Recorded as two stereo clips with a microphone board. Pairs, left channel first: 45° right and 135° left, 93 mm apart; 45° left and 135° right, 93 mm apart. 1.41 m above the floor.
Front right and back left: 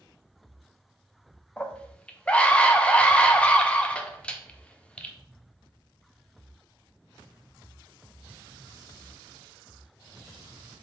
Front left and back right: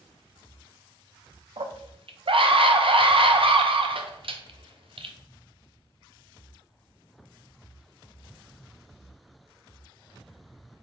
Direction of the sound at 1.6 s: 120° right.